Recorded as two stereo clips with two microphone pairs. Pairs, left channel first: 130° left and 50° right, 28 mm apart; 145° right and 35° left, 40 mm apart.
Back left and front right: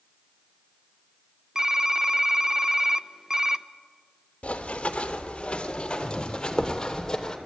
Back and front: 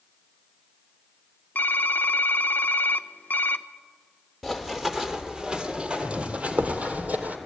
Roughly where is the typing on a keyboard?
Behind right.